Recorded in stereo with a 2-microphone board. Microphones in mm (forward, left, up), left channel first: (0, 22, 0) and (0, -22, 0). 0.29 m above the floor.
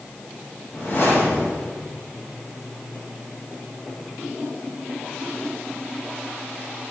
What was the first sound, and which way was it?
A whoosh, 55° left (ahead or behind).